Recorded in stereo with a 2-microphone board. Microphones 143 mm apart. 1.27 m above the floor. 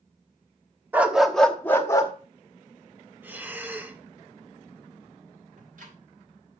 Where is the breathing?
15° right (ahead or behind), 1.0 m.